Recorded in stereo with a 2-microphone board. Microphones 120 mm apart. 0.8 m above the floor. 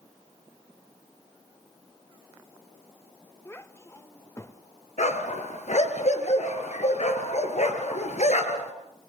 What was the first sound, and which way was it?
A child speaking, 20° left (ahead or behind).